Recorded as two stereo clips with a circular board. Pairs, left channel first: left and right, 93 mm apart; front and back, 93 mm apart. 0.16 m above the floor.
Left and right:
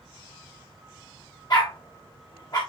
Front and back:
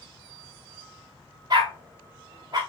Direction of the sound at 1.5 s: 135° left.